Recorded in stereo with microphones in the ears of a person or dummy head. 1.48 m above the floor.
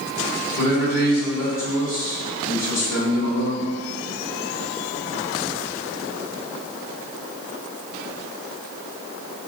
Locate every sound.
0.6 s a man speaking: 55° left (ahead or behind), 1.8 m